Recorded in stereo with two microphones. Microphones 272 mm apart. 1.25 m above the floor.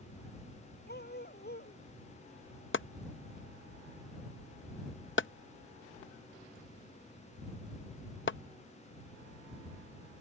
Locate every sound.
0.9 s a dog barking: 35° left (ahead or behind)
2.7 s chopping: 45° left (ahead or behind)